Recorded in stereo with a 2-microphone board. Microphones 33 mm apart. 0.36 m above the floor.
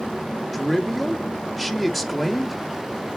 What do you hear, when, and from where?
0.5 s a man speaking: centre (ahead or behind), 0.9 m